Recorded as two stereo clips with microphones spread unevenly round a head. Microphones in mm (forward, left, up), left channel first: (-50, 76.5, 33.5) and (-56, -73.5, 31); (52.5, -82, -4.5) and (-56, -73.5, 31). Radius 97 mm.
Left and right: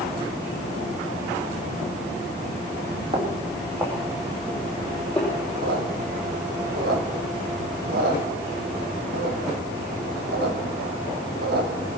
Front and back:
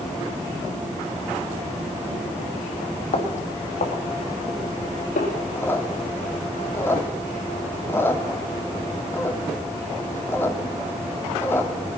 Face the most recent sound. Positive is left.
turn(degrees=-85)